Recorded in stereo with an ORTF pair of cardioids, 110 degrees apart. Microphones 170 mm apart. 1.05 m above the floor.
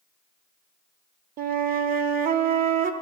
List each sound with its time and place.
1.4 s a flute: 60° right, 1.1 m